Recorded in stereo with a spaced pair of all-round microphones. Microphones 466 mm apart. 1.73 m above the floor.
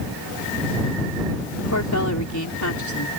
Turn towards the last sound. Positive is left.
turn(degrees=35)  # may be behind; listen again after turning